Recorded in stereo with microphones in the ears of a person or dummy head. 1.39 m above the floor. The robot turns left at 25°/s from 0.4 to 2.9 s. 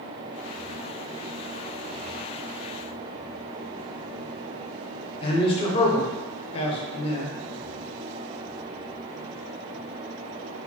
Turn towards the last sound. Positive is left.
turn(degrees=30)  # may be behind; listen again after turning